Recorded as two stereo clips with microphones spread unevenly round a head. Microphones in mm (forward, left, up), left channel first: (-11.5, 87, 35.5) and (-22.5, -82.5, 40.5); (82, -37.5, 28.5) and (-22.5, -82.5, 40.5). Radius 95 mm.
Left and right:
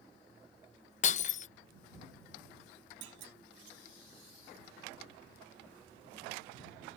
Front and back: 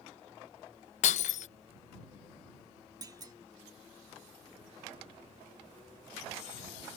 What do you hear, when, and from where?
1.0 s breaking glass: 40° left
3.0 s a clunk: 105° right